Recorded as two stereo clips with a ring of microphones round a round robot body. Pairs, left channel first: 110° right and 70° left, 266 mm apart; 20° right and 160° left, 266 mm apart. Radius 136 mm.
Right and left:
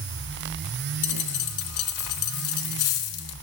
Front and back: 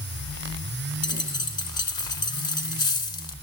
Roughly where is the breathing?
I don't hear breathing.